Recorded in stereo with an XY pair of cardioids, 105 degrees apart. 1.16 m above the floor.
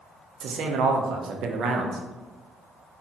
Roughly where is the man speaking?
Ahead right.